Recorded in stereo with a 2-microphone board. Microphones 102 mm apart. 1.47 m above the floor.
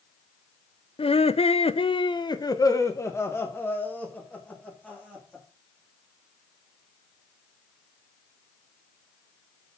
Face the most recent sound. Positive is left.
turn(degrees=10)  # may be behind; listen again after turning